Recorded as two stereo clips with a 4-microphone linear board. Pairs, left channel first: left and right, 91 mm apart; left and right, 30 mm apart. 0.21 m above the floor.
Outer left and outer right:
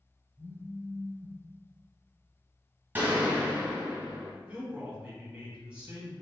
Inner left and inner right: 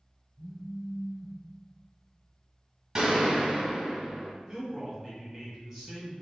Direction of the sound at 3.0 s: 20° right (ahead or behind).